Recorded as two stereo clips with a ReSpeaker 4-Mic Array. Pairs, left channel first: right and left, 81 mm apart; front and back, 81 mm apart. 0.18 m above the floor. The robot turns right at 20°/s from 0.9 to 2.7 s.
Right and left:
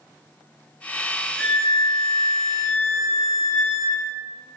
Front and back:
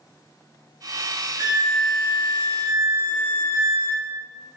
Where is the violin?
Straight behind, 1.9 m; by 4.0 s 150° right, 1.9 m.